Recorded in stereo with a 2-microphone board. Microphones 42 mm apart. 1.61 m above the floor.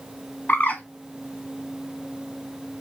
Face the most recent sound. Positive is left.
turn(degrees=45)  # may be behind; listen again after turning